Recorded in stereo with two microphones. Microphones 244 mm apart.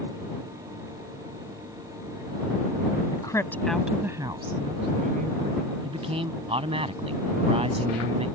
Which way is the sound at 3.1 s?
20° left (ahead or behind).